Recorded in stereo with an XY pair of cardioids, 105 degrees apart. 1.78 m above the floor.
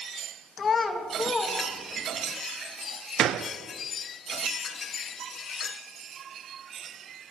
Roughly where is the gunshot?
Ahead right.